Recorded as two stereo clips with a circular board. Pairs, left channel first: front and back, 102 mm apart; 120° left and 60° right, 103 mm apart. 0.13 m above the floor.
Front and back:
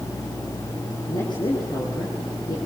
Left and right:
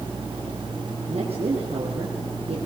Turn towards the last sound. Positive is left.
turn(degrees=-45)